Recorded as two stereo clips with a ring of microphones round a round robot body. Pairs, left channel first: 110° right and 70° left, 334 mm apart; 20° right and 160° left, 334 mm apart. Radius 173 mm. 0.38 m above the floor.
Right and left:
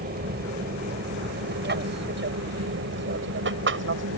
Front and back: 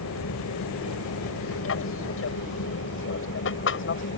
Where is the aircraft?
10° left; by 4.2 s 25° left.